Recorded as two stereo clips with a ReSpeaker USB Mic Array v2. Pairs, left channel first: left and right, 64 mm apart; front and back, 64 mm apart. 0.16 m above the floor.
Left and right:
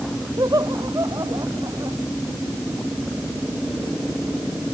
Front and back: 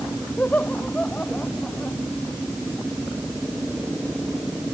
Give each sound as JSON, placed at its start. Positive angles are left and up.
{"t": 0.4, "sound": "laughter", "azimuth_deg": -65}